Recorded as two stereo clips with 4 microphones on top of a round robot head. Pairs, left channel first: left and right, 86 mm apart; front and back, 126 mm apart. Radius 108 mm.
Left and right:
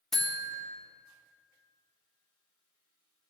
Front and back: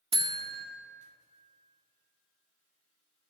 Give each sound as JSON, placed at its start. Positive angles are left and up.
{"t": 0.1, "sound": "a buzzer", "azimuth_deg": 175, "distance_m": 1.6}